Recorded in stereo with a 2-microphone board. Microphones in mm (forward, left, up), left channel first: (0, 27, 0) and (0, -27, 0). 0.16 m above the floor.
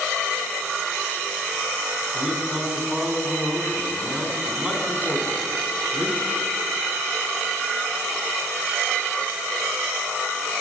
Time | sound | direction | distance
2.1 | a man speaking | 15° right (ahead or behind) | 1.2 m